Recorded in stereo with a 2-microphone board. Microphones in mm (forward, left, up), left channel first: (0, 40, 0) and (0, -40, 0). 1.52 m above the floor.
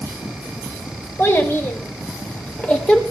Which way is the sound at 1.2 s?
30° left (ahead or behind).